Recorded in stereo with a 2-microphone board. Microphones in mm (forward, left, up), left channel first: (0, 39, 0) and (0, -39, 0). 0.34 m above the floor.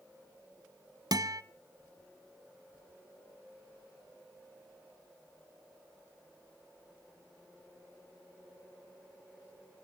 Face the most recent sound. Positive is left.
turn(degrees=-60)  # may be behind; listen again after turning